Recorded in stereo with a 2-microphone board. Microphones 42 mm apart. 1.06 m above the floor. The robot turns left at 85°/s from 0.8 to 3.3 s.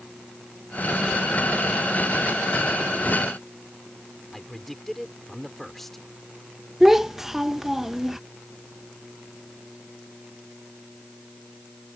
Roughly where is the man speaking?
Centre.